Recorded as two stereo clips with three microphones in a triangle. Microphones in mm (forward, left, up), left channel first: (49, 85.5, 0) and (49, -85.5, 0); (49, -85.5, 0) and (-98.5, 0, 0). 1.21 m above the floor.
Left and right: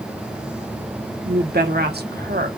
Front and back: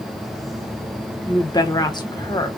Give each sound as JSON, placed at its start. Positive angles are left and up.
{"t": 1.2, "sound": "a woman speaking", "azimuth_deg": -95, "distance_m": 1.2}